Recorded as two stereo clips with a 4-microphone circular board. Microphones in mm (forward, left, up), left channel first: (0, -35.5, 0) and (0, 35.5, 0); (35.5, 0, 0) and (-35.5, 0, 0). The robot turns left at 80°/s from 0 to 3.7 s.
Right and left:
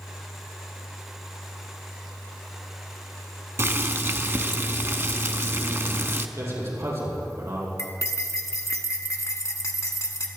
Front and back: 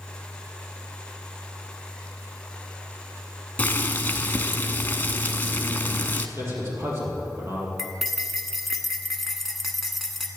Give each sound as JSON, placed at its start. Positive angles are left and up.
{"t": 3.6, "sound": "boiling", "azimuth_deg": 60, "distance_m": 0.7}
{"t": 6.4, "sound": "a man speaking", "azimuth_deg": 130, "distance_m": 5.0}
{"t": 7.8, "sound": "cutlery clinking", "azimuth_deg": -90, "distance_m": 1.2}